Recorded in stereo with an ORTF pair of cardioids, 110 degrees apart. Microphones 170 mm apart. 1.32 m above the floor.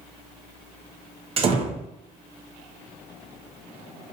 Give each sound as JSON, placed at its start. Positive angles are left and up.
{"t": 1.4, "sound": "a door slam", "azimuth_deg": -35, "distance_m": 0.6}